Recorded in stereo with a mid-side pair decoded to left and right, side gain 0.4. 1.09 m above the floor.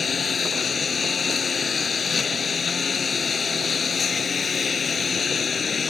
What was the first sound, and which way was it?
A lawn mower, 50° left.